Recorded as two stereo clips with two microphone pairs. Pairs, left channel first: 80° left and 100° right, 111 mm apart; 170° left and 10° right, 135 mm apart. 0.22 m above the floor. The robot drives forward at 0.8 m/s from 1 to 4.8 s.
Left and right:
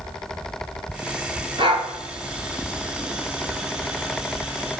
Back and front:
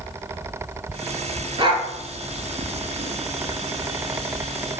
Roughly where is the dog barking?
Ahead right.